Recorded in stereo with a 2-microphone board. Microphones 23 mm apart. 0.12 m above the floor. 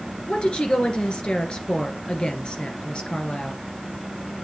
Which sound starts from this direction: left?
A woman speaking, at 0.3 s.